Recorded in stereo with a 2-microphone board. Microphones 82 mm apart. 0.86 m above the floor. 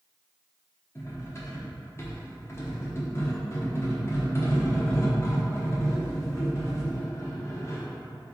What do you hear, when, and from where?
0.9 s cutlery clinking: 35° left (ahead or behind), 0.9 m